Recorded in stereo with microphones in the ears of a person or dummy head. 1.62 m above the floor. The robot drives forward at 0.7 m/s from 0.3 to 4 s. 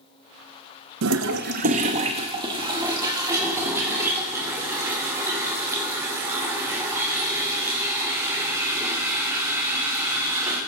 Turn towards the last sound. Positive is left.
turn(degrees=-15)  # may be behind; listen again after turning